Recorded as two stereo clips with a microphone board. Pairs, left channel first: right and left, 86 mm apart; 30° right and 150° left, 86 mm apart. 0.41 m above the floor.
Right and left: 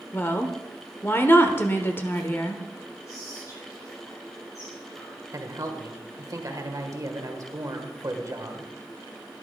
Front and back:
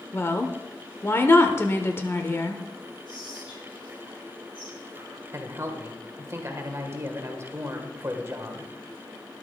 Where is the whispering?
45° right, 6 m.